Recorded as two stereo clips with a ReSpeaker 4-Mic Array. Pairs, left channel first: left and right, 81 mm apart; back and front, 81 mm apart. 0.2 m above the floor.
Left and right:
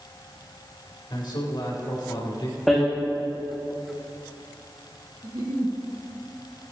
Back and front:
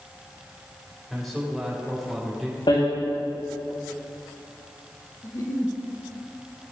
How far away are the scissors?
I don't hear scissors.